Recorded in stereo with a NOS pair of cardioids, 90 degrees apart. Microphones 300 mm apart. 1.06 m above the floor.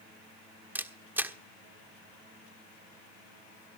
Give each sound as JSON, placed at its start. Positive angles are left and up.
{"t": 0.8, "sound": "a camera shutter", "azimuth_deg": -5, "distance_m": 1.3}